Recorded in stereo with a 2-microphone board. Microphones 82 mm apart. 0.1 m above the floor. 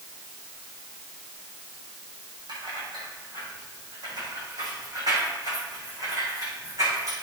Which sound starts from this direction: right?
Keys jangling, at 2.5 s.